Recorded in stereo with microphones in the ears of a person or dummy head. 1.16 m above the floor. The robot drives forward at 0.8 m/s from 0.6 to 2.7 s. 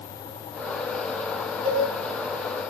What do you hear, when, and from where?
1.6 s a cowbell: 25° right (ahead or behind), 5.5 m